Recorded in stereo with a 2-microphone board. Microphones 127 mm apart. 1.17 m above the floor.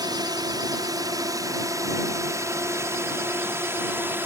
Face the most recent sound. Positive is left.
turn(degrees=-15)  # may be behind; listen again after turning